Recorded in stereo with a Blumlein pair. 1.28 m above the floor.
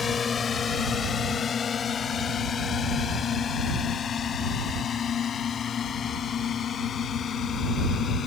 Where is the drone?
20° left; by 8.3 s 25° left.